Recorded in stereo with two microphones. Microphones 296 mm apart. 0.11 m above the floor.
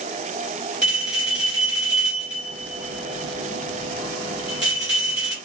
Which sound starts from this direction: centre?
A bell, at 0.8 s.